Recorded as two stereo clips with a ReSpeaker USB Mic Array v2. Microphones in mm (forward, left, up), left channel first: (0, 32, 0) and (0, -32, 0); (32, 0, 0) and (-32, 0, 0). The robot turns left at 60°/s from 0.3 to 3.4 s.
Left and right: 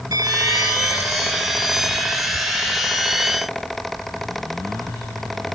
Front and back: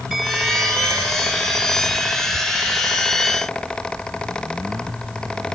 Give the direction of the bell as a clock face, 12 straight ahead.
3 o'clock.